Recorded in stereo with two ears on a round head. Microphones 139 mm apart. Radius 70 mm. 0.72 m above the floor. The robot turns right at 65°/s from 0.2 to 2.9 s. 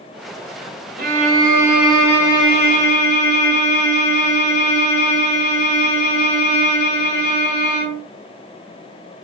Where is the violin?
65° right, 3 m; by 8.0 s 60° left, 3 m.